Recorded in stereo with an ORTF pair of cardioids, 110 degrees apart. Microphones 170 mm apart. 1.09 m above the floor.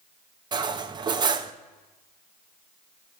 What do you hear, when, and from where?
0.5 s cutlery clinking: 30° right, 0.5 m